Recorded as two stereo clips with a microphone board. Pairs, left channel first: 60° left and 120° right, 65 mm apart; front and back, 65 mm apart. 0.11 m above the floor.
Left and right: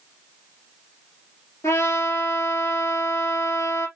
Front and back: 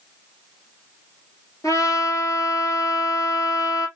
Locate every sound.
1.6 s a trumpet: 25° left, 2.5 m